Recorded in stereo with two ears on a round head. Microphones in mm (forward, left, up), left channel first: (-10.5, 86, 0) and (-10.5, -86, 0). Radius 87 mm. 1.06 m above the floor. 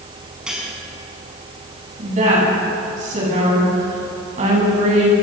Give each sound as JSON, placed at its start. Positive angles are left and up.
{"t": 0.5, "sound": "cutlery clinking", "side_deg": -5, "distance_m": 6.0}
{"t": 2.0, "sound": "a woman speaking", "side_deg": -40, "distance_m": 9.5}